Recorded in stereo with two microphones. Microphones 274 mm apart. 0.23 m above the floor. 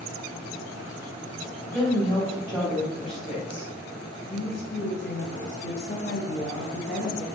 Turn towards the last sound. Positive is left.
turn(degrees=30)  # may be behind; listen again after turning